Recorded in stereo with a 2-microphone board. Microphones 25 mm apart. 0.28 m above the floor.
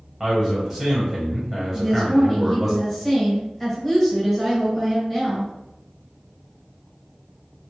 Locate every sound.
0.2 s a man speaking: 10° right (ahead or behind), 0.9 m
1.7 s a woman speaking: 10° left (ahead or behind), 1.4 m